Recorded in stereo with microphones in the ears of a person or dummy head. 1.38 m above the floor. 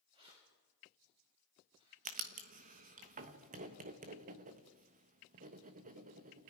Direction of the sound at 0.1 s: 30° right (ahead or behind).